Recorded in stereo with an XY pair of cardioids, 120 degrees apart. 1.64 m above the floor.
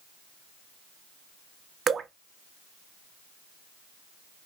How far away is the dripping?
About 0.5 m.